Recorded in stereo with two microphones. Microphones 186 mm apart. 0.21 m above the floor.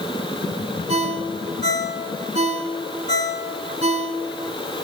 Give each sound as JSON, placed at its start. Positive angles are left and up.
{"t": 0.9, "sound": "a ringtone", "side_deg": -35, "distance_m": 1.5}